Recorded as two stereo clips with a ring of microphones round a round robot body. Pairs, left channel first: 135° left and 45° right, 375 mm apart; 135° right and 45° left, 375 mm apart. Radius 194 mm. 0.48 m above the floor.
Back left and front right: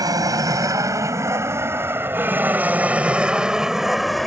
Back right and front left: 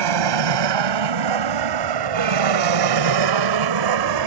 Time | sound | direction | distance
0.0 | an aircraft | 35° left | ?